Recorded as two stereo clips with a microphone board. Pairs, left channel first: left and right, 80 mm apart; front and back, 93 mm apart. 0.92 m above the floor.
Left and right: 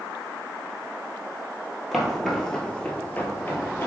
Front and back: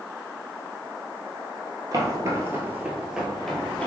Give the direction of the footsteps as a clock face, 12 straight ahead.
6 o'clock.